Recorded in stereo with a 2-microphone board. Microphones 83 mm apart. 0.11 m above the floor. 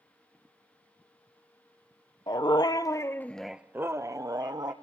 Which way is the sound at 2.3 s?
70° left (ahead or behind).